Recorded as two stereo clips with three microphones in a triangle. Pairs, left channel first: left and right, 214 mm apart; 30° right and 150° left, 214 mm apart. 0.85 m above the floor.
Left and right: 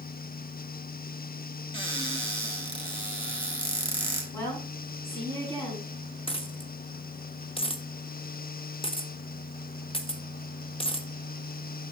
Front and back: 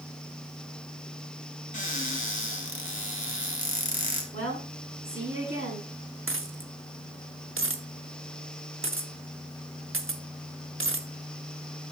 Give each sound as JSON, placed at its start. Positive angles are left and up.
{"t": 1.7, "sound": "a cupboard door", "azimuth_deg": 25, "distance_m": 1.6}
{"t": 4.3, "sound": "a woman speaking", "azimuth_deg": 170, "distance_m": 6.0}
{"t": 6.3, "sound": "a dropped coin", "azimuth_deg": 150, "distance_m": 0.7}